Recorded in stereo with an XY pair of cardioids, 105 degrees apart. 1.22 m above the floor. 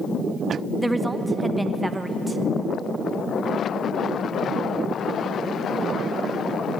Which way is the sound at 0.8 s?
10° right.